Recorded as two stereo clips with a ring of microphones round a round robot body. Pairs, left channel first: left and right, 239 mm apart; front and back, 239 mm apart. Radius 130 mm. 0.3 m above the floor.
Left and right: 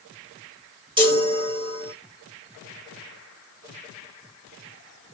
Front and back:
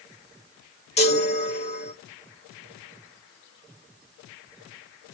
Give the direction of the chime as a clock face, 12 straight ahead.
1 o'clock.